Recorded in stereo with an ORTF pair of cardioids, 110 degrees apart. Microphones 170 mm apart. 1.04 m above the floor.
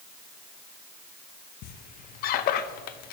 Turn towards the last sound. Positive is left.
turn(degrees=65)